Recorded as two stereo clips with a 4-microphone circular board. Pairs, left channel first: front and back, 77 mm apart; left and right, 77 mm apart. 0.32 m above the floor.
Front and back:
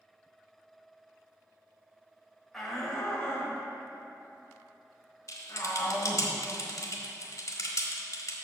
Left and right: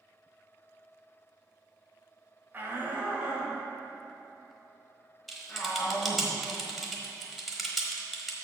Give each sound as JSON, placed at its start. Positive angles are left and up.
{"t": 2.5, "sound": "a shout", "azimuth_deg": -85, "distance_m": 1.4}
{"t": 5.3, "sound": "typing on a keyboard", "azimuth_deg": 0, "distance_m": 1.1}